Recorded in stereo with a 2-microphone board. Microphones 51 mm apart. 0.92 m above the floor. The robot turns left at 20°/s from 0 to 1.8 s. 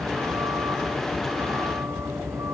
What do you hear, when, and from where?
0.0 s a vehicle: 75° right; by 2.5 s 110° right